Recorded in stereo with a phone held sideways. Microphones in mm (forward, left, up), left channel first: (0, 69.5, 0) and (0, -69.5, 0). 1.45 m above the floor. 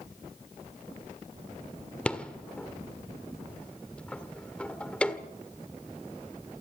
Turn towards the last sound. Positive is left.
turn(degrees=5)  # may be behind; listen again after turning